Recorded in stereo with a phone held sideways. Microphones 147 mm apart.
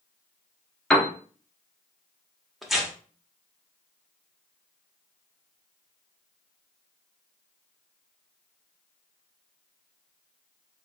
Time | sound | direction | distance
0.9 | a piano | 5° left (ahead or behind) | 0.9 m
2.6 | tearing paper | centre (ahead or behind) | 1.1 m